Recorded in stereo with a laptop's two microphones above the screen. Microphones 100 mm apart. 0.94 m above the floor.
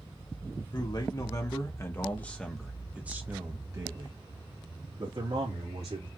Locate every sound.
0.7 s a man speaking: 45° left (ahead or behind), 1.7 m; by 6.1 s 70° right (ahead or behind), 2.5 m